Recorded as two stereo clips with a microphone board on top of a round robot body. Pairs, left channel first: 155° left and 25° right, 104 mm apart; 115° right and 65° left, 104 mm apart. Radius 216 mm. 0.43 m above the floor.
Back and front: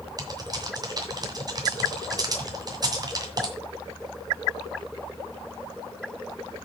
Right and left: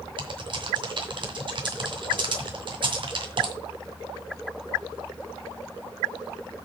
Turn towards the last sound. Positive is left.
turn(degrees=30)